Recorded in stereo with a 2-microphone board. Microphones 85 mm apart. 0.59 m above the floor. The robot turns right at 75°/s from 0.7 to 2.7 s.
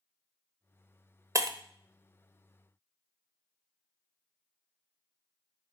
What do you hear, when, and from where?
1.4 s breaking glass: 40° right (ahead or behind), 0.8 m; by 1.6 s 55° right (ahead or behind), 0.8 m